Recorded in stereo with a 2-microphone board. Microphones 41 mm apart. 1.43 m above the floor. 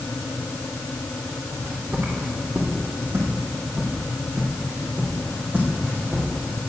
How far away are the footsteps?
About 3.5 m.